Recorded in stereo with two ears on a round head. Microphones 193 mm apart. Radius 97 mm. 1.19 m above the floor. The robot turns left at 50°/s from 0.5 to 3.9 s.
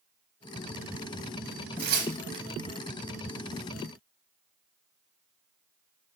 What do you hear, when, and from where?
1.8 s tearing paper: 50° right (ahead or behind), 0.8 m; by 2.4 s 20° right (ahead or behind), 0.8 m